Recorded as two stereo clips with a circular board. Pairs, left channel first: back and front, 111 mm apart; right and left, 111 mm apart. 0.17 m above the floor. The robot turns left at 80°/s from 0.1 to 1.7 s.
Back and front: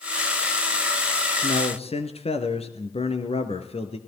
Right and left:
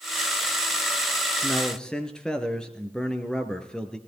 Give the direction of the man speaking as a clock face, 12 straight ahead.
5 o'clock.